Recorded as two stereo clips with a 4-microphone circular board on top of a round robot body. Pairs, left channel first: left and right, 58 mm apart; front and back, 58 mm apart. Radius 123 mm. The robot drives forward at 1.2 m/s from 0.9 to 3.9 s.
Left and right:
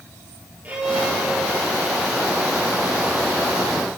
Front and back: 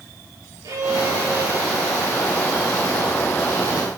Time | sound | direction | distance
0.6 | a violin | 150° right | 8.5 m